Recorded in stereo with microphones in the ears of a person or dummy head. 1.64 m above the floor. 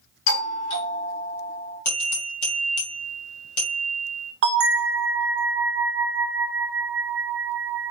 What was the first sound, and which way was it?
A doorbell, 70° left (ahead or behind).